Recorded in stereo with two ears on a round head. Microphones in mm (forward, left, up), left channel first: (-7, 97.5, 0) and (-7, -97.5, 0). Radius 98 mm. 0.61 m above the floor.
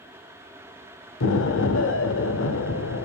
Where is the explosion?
60° left (ahead or behind), 0.9 m.